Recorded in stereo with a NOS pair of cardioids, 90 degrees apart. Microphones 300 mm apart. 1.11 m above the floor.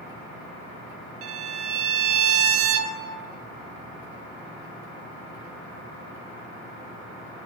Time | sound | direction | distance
1.2 | a violin | 50° right | 0.6 m